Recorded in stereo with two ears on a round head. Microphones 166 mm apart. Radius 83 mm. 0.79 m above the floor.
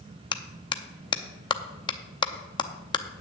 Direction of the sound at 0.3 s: 25° left (ahead or behind).